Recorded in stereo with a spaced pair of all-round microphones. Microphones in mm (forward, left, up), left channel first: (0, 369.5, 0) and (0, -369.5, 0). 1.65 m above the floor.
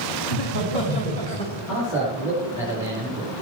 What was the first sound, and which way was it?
Laughter, 15° left (ahead or behind).